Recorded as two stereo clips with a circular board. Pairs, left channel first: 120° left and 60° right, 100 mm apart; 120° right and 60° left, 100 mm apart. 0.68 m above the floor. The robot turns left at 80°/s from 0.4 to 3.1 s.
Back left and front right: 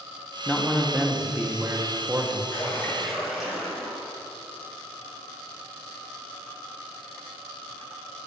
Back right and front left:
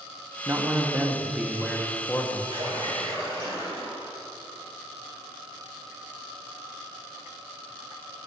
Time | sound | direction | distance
0.5 | a man speaking | 55° left | 0.9 m
2.5 | a splash | 75° left | 3.5 m